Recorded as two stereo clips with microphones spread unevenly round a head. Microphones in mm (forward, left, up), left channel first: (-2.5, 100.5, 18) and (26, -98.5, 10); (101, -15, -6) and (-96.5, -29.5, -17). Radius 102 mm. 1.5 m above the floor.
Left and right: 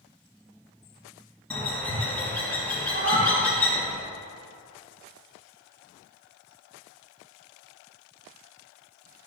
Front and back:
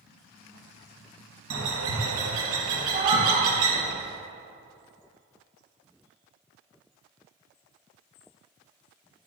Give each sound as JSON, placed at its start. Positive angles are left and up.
{"t": 1.5, "sound": "a bird", "azimuth_deg": 180, "distance_m": 1.2}
{"t": 2.9, "sound": "a cat meowing", "azimuth_deg": -115, "distance_m": 1.9}